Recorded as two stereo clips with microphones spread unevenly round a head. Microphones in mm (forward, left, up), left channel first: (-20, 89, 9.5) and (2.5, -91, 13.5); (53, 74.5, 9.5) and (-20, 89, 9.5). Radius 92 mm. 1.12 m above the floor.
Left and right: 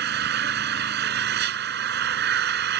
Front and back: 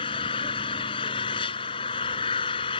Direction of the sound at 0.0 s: 45° right.